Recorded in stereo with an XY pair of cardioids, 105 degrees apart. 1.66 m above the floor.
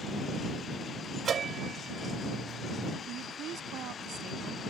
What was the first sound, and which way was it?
A bell, 45° right.